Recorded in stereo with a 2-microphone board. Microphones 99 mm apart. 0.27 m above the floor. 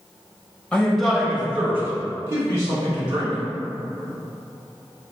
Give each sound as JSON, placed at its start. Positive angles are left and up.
{"t": 0.7, "sound": "a man speaking", "side_deg": 10, "distance_m": 0.9}